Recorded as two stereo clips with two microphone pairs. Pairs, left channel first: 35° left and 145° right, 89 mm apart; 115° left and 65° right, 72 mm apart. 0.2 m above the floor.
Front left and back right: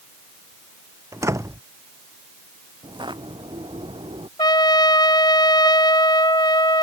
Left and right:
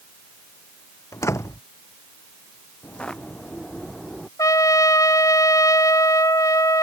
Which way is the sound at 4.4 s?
75° left.